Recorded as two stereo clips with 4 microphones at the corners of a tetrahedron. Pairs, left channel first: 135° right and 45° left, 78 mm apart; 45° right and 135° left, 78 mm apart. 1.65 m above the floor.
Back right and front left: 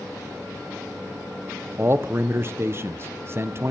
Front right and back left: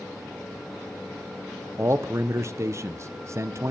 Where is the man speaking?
90° left, 0.8 m.